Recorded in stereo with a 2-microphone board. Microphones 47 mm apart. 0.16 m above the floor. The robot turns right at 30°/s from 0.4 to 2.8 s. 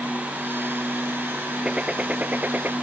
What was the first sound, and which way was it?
A gunshot, 160° right.